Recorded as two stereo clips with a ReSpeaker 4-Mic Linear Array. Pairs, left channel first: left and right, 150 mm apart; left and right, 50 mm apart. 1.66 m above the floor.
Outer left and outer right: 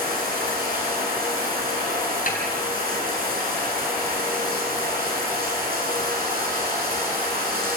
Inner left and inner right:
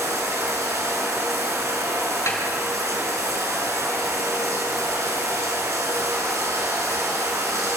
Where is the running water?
75° right (ahead or behind), 7 m.